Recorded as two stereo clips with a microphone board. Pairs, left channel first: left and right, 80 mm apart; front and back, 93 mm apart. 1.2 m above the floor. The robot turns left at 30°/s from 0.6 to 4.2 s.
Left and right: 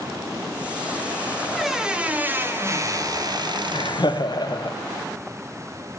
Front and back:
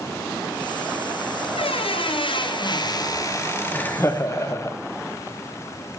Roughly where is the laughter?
Left.